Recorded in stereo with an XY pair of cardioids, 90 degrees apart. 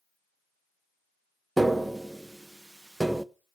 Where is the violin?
I don't hear a violin.